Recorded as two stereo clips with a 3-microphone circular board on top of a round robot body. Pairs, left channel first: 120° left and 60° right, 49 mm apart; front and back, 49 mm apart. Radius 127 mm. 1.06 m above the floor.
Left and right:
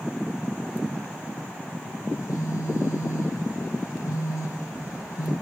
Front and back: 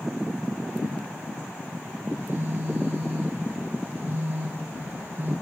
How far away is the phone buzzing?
About 1.0 m.